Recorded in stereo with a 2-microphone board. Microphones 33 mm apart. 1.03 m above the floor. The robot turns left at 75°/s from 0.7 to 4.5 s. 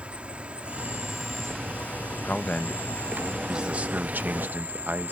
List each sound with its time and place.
0.0 s an insect: 135° right; by 5.1 s 60° right
2.2 s a man speaking: 70° left; by 5.1 s 100° right